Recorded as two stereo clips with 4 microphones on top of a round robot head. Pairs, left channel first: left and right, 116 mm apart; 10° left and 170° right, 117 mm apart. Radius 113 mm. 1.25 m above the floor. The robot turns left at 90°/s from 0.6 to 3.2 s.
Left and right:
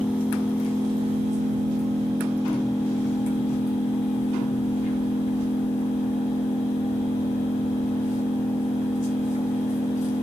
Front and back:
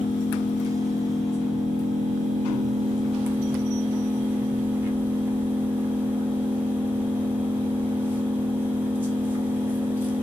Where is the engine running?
10° right, 0.7 m; by 10.2 s 115° left, 0.7 m.